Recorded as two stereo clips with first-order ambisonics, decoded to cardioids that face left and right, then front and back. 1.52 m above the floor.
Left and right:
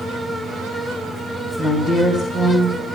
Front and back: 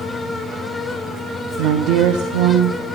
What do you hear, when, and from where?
1.6 s a woman speaking: 175° left, 1.2 m